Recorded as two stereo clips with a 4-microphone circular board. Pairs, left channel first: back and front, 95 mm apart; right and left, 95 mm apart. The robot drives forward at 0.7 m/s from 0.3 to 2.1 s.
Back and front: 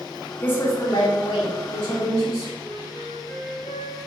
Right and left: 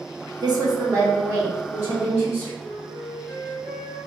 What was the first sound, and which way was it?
A woman speaking, 110° left.